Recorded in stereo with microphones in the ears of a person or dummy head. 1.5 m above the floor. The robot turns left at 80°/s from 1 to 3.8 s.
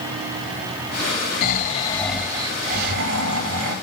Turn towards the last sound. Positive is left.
turn(degrees=-135)